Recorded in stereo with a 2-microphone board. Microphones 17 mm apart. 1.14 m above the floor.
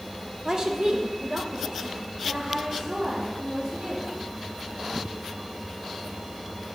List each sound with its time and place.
0.5 s a woman speaking: 35° right (ahead or behind), 0.7 m; by 4.1 s 80° right, 3.5 m